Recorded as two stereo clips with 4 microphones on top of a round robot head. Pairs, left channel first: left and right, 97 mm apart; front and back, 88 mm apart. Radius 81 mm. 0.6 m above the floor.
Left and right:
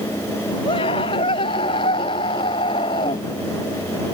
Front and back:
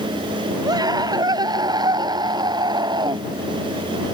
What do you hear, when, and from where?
0.7 s a scream: 135° left; by 3.2 s 140° left